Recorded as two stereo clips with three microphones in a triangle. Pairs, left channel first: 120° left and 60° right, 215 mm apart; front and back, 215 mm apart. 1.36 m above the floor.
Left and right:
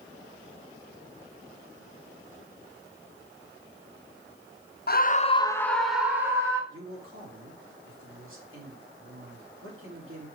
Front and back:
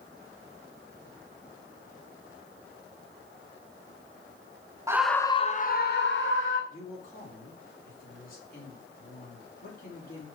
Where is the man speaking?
50° right, 3 m.